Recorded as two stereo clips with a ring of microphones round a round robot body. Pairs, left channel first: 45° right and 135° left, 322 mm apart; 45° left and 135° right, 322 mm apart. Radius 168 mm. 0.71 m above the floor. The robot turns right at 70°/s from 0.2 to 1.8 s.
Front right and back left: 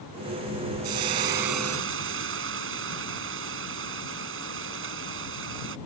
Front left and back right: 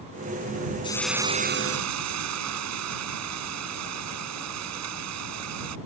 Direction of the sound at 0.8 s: 120° left.